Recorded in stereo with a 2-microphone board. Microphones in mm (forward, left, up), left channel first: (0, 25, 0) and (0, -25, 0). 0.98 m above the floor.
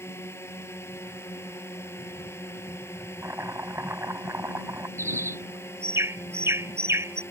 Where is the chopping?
65° right (ahead or behind).